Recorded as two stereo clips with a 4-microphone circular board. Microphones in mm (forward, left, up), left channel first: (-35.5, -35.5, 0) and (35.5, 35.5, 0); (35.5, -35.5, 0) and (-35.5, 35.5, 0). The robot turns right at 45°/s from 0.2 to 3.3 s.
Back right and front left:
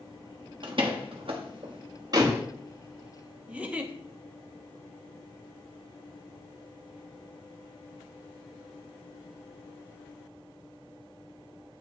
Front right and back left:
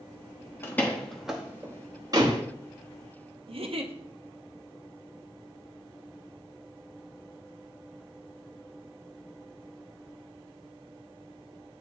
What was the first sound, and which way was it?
A door slam, 20° left.